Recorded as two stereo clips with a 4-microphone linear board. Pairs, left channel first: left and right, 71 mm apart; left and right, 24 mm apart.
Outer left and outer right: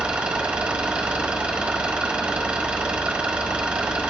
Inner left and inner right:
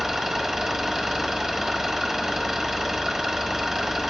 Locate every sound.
0.0 s an engine running: 15° right (ahead or behind), 1.3 m